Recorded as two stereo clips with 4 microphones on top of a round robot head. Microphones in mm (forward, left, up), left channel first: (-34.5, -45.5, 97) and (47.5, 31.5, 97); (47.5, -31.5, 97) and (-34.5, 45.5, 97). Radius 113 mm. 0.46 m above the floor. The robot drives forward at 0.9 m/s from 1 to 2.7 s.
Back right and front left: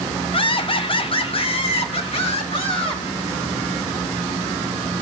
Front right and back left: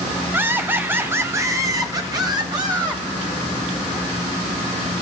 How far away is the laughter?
About 1.2 m.